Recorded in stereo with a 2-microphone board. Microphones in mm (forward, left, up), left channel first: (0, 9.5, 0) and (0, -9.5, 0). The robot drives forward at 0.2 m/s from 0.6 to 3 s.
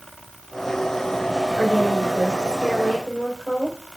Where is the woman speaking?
70° left (ahead or behind), 4 m.